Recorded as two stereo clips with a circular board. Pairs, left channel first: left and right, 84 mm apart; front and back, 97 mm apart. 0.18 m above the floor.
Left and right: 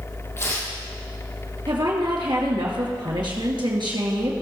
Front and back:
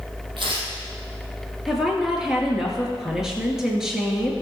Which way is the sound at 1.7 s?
95° right.